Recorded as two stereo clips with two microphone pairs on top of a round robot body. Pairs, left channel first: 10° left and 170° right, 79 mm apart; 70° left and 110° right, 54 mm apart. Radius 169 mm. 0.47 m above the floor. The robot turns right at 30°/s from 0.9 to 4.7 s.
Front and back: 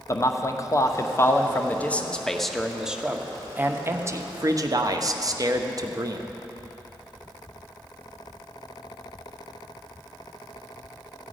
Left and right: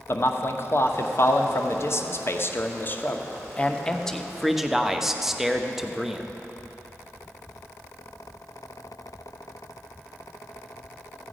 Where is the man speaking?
50° left, 1.0 m; by 6.2 s 165° left, 1.0 m.